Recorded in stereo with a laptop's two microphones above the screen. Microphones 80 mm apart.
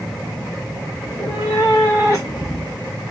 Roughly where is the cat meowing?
Left.